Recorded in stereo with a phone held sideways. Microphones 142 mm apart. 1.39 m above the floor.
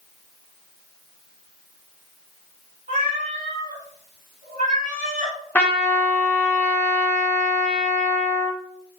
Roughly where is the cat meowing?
Right.